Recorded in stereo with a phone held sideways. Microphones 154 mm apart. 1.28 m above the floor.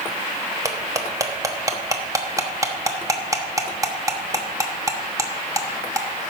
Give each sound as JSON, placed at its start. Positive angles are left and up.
{"t": 0.7, "sound": "cutlery clinking", "side_deg": -20, "distance_m": 1.1}